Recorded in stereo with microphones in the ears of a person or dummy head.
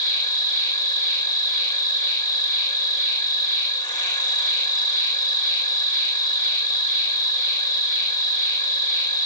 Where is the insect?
20° left (ahead or behind), 3 m.